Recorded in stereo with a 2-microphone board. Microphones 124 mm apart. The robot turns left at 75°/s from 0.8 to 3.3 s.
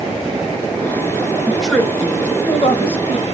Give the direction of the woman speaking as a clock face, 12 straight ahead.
6 o'clock.